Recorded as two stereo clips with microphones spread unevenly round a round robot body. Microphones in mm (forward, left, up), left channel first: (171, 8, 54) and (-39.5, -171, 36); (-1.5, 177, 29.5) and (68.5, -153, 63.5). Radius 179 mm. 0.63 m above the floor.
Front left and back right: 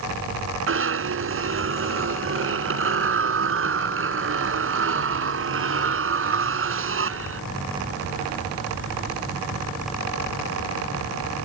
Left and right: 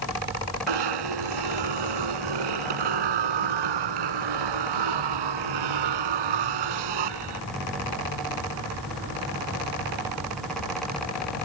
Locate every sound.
0.7 s a zipper: 100° right